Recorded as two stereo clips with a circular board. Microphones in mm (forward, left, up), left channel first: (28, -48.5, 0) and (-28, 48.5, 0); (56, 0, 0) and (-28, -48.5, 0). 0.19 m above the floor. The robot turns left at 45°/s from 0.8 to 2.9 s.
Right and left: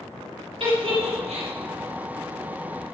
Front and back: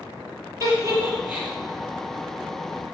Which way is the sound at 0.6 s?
155° left.